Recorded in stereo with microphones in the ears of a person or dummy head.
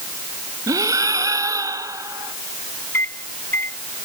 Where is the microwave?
10° left (ahead or behind).